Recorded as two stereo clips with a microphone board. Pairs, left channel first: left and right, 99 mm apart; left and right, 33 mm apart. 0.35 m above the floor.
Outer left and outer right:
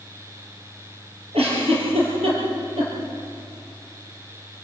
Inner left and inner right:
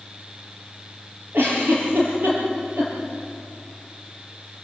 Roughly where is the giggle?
Right.